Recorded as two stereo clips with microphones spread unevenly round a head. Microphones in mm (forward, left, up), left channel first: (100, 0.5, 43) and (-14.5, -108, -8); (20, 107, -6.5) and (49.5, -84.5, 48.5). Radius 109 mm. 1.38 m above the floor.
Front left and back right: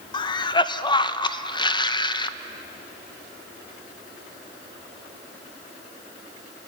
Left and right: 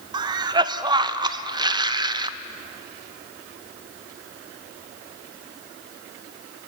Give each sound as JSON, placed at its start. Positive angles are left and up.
{"t": 0.1, "sound": "a cough", "azimuth_deg": -15, "distance_m": 1.0}